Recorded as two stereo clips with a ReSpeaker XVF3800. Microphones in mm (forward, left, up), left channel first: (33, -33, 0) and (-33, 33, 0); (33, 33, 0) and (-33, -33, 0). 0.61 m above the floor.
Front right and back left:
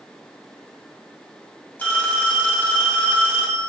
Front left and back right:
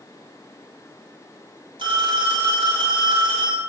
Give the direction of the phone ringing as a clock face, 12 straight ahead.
4 o'clock.